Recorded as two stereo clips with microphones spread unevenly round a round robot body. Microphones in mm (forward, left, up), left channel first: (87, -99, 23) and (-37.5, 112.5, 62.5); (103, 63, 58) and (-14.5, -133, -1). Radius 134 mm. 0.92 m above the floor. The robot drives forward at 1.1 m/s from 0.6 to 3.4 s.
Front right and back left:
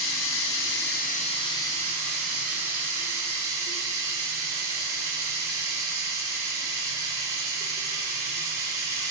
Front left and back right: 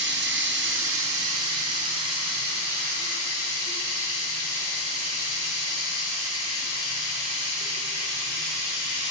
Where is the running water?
90° right, 1.2 m; by 9.1 s 160° right, 3.5 m.